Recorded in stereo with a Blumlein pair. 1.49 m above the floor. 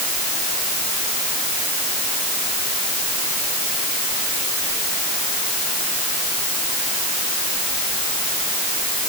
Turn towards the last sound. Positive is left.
No sound to turn to.